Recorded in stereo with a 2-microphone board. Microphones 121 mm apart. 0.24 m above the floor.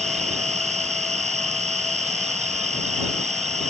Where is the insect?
70° right (ahead or behind).